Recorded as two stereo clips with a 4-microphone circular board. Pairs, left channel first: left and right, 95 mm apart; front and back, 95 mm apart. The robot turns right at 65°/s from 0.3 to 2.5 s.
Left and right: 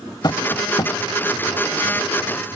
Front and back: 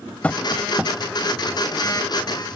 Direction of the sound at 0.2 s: 70° left.